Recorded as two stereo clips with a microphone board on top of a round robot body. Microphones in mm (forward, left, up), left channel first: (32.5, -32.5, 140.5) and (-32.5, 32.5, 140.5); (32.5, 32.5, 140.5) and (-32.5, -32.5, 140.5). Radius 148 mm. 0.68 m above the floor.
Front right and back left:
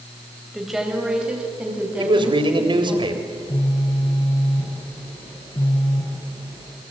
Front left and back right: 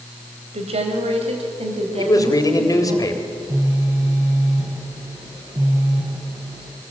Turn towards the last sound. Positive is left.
turn(degrees=-80)